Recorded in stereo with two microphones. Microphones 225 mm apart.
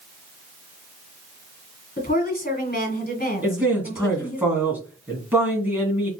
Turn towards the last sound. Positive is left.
turn(degrees=-5)  # may be behind; listen again after turning